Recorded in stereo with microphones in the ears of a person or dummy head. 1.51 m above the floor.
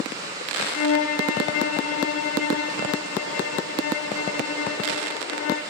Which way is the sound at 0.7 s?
55° left (ahead or behind).